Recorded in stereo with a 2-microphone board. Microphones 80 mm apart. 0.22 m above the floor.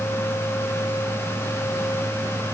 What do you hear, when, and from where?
Only background noise.